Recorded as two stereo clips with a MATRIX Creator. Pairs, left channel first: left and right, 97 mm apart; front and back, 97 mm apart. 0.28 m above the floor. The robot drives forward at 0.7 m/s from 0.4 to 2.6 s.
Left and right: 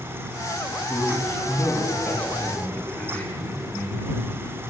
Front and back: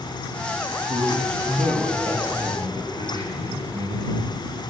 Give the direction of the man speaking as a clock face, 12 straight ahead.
7 o'clock.